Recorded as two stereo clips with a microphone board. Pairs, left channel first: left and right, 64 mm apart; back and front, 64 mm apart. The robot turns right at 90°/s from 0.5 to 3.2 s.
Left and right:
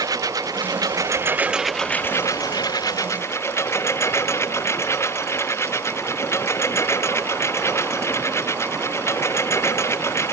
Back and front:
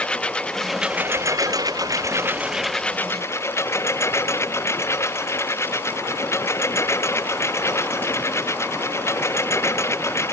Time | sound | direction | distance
0.0 | a lawn mower | 105° right | ?